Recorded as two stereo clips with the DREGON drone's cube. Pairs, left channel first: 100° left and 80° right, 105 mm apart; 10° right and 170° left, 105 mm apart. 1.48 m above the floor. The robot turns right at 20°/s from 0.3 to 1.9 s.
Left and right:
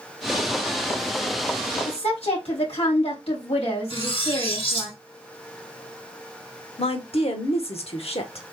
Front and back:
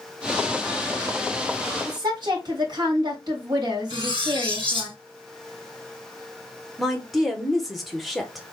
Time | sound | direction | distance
1.9 | a woman speaking | 125° left | 3 m
3.9 | cutlery clinking | 135° left | 3.5 m
6.8 | a woman speaking | 80° left | 1.4 m